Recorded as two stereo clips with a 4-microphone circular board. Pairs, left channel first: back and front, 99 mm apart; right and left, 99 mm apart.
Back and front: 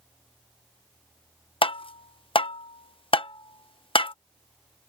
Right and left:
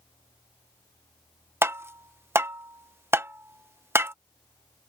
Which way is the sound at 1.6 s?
155° left.